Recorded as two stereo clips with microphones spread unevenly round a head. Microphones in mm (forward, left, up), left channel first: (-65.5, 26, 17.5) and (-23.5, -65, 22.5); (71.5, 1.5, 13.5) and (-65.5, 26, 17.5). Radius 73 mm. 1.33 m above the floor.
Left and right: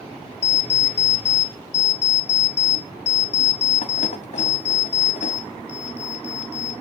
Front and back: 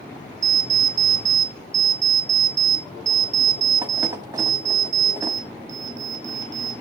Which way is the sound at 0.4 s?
105° left.